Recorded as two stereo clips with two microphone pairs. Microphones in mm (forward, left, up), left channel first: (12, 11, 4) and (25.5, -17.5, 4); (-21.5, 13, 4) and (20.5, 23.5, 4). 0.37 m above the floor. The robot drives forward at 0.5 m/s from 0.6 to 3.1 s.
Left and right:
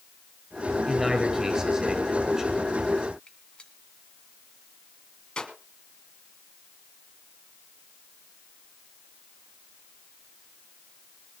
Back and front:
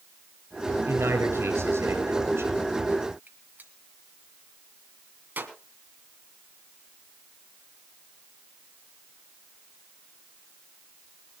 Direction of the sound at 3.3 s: 55° left.